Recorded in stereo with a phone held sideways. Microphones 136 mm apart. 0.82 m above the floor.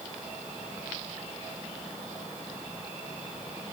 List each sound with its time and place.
Only background noise.